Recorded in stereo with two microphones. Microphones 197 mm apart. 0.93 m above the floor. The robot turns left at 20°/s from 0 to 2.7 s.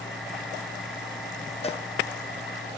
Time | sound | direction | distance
1.6 | a cowbell | 30° left (ahead or behind) | 0.5 m